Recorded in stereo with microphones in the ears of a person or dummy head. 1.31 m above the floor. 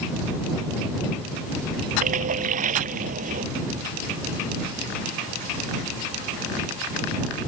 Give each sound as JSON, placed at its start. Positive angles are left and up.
{"t": 2.0, "sound": "a splash", "side_deg": -45}